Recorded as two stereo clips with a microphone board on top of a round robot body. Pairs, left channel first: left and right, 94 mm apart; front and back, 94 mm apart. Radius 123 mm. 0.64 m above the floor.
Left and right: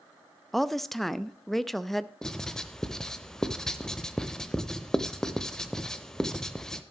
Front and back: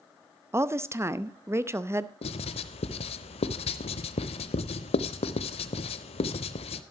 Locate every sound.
0.5 s a woman speaking: 175° left, 0.9 m
2.2 s writing: 5° left, 0.6 m